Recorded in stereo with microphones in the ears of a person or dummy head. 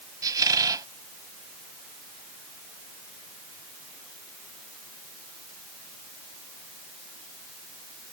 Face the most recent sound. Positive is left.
turn(degrees=-10)  # may be behind; listen again after turning